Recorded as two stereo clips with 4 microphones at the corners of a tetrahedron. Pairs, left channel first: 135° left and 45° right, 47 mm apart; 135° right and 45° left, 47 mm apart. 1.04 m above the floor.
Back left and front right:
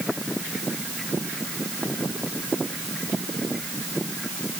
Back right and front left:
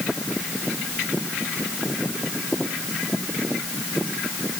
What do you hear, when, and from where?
Only background noise.